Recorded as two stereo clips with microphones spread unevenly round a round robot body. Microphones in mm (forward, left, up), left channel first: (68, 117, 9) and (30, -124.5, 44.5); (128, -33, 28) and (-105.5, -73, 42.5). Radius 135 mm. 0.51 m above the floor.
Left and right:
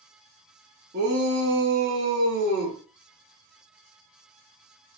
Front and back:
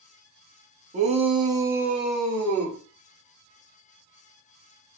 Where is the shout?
130° right, 1.0 m; by 2.8 s 65° right, 1.4 m.